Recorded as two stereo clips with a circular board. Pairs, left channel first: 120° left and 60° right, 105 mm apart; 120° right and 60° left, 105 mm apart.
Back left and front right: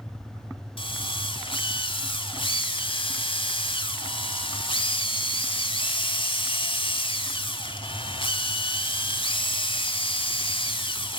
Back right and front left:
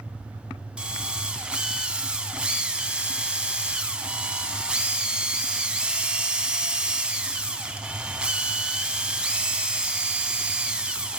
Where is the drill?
140° left, 1.2 m.